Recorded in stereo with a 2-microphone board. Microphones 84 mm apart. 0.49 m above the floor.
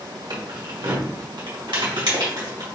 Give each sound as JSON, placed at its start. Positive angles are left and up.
{"t": 0.3, "sound": "keys jangling", "side_deg": -55, "distance_m": 1.0}